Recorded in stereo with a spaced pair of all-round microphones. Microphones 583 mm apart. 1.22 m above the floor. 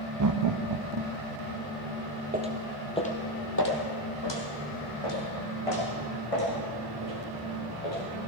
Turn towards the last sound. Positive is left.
turn(degrees=70)  # may be behind; listen again after turning